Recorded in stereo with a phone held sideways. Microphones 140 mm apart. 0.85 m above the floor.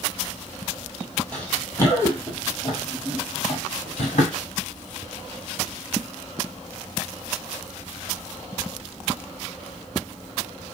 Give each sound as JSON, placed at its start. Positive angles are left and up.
{"t": 1.3, "sound": "running footsteps", "side_deg": 10, "distance_m": 1.5}